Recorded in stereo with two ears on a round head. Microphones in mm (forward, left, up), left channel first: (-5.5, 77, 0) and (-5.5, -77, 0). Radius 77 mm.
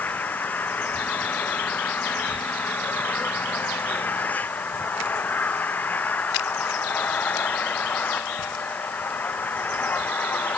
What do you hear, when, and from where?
0.0 s an engine running: 10° left (ahead or behind)